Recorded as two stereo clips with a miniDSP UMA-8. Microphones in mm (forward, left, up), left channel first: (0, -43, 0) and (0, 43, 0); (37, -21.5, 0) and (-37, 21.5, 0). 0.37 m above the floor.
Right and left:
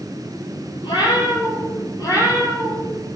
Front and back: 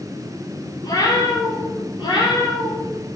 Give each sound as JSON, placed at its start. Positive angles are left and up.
{"t": 0.8, "sound": "a cat meowing", "azimuth_deg": -70, "distance_m": 4.5}